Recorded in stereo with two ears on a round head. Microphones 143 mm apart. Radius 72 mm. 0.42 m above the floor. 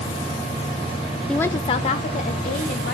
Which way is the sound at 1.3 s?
5° left (ahead or behind).